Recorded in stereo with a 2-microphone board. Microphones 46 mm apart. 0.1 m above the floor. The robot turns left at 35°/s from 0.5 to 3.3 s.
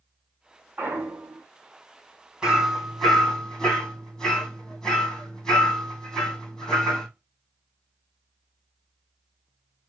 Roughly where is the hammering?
Centre.